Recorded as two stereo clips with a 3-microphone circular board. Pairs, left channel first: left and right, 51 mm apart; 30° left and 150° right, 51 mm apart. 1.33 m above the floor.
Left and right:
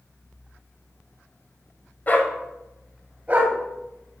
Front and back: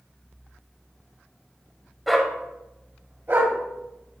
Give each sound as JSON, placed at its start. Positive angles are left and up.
{"t": 2.1, "sound": "a dog barking", "azimuth_deg": 120, "distance_m": 1.4}